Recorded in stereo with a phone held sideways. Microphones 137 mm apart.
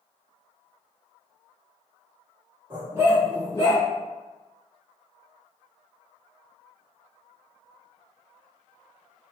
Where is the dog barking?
35° right (ahead or behind), 1.6 m; by 3.8 s 35° left (ahead or behind), 1.5 m.